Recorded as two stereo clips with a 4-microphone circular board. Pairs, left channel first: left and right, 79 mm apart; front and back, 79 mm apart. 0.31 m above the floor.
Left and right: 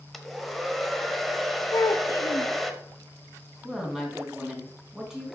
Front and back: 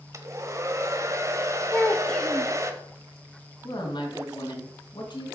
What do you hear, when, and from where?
0.1 s a hair dryer: straight behind, 1.1 m
1.7 s a child speaking: 75° left, 0.6 m
3.6 s a woman speaking: 5° right, 3 m